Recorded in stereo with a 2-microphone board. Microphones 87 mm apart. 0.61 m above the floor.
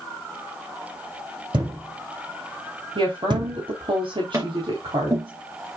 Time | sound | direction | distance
1.5 | a thud | 60° right (ahead or behind) | 5 m
3.0 | a woman speaking | 75° right (ahead or behind) | 3.5 m
4.3 | tapping | 35° right (ahead or behind) | 3.5 m